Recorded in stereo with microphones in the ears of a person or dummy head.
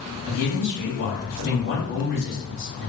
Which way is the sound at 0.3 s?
50° left (ahead or behind).